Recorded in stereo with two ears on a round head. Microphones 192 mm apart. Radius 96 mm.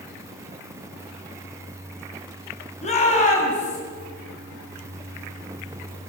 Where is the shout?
30° left (ahead or behind), 7 m; by 3.8 s 35° left (ahead or behind), 6 m.